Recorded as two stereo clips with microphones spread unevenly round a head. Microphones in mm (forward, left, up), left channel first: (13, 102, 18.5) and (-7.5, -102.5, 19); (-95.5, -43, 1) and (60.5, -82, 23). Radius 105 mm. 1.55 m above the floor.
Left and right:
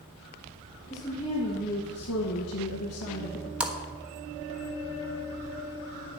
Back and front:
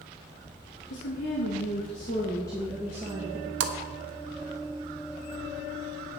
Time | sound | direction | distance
0.9 | a woman speaking | 160° left | 2.5 m
3.6 | a splash | 10° right | 1.1 m